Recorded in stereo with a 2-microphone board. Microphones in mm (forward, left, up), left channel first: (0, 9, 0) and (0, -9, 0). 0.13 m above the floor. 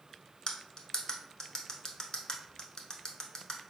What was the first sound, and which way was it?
Cutlery clinking, 40° left (ahead or behind).